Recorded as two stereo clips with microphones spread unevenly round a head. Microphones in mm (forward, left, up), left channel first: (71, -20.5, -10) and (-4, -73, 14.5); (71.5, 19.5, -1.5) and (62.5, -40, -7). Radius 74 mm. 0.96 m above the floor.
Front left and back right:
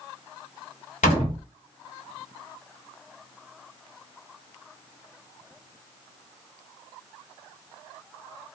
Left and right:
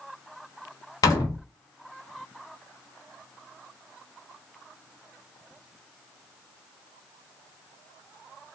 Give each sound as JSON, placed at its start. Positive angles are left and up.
{"t": 1.0, "sound": "a door slam", "azimuth_deg": 65, "distance_m": 1.0}